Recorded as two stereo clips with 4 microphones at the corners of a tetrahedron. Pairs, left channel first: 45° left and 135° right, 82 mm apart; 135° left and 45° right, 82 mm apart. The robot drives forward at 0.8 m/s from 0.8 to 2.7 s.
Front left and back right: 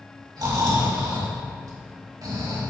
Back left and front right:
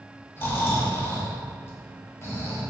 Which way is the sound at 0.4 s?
165° right.